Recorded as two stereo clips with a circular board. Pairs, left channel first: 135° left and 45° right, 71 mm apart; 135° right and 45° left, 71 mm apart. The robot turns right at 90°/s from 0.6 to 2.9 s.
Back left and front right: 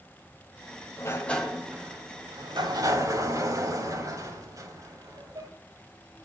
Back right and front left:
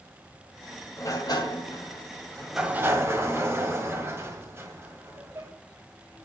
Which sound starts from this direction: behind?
A sliding door, at 1.0 s.